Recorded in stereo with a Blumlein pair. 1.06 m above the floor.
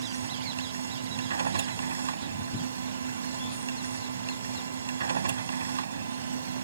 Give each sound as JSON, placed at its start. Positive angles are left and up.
{"t": 0.0, "sound": "a machine running", "azimuth_deg": -70}